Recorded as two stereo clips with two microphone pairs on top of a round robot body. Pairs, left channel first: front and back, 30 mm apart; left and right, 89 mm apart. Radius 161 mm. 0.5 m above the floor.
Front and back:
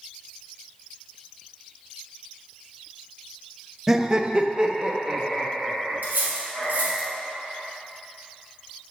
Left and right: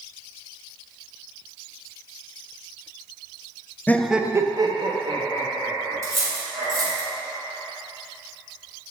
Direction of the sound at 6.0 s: 150° right.